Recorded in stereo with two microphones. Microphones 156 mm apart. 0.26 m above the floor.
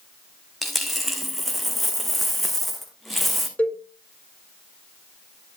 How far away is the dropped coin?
About 1.7 m.